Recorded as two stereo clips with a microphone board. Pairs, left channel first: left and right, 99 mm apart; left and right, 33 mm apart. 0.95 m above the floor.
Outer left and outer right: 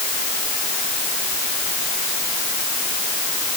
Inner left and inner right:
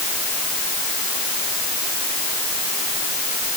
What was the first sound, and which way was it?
Only background noise.